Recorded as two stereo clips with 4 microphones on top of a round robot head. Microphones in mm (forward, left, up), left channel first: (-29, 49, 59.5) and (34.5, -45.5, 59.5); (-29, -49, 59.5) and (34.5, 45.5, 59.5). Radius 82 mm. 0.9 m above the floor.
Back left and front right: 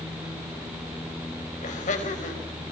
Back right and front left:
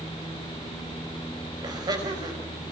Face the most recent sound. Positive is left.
turn(degrees=110)